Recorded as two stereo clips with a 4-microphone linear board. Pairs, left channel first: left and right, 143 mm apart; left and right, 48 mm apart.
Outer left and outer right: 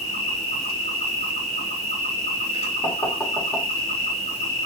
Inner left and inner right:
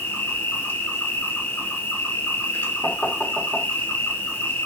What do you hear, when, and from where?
0.0 s an insect: 55° left (ahead or behind), 1.2 m
2.8 s knocking: 20° left (ahead or behind), 1.1 m